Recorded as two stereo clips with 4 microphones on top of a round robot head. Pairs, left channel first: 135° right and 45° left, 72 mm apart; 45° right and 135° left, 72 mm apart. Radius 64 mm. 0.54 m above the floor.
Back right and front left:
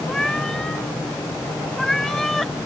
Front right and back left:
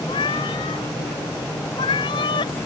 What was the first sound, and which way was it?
A cat meowing, 50° right.